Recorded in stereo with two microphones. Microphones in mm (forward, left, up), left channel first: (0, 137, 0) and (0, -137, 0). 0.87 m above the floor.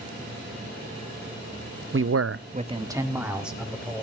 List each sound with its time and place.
1.9 s a man speaking: 45° right (ahead or behind), 0.7 m; by 4.0 s centre (ahead or behind), 3 m